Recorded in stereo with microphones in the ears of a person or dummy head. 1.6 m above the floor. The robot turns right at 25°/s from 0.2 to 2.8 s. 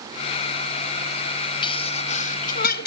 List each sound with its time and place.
1.6 s a sneeze: 30° left (ahead or behind); by 2.9 s 60° left (ahead or behind)